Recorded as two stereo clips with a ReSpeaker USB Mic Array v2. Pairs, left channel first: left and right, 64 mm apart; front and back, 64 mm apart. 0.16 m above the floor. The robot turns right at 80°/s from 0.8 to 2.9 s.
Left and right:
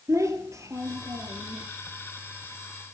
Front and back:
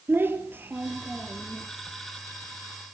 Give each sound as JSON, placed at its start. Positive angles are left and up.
{"t": 0.1, "sound": "a child speaking", "azimuth_deg": -125, "distance_m": 2.5}